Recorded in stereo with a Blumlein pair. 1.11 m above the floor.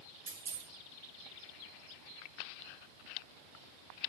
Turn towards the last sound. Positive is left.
turn(degrees=-70)